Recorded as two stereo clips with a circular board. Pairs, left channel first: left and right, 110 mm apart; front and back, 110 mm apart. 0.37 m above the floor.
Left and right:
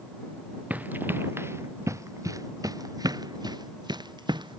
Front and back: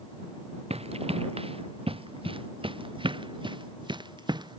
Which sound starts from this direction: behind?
Running footsteps, at 0.7 s.